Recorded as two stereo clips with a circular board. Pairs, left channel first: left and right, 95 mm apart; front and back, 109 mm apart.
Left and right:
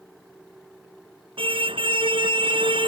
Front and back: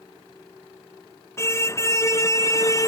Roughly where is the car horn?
Ahead right.